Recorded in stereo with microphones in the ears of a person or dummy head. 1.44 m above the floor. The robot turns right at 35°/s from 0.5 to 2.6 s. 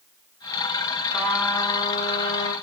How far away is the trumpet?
About 8.5 m.